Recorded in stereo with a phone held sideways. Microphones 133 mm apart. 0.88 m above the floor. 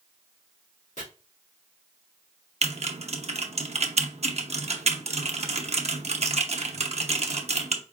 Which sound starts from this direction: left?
Chopping, at 1.0 s.